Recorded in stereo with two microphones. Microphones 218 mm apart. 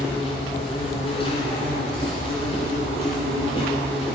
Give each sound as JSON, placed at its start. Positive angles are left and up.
{"t": 0.0, "sound": "an insect", "side_deg": 25, "distance_m": 2.5}